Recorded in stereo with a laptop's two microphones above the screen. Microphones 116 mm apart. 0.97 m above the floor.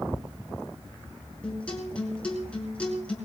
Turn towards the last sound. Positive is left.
turn(degrees=10)  # may be behind; listen again after turning